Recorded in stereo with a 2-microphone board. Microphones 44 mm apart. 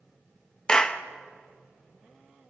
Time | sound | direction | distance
0.7 | a clap | 15° left (ahead or behind) | 1.1 m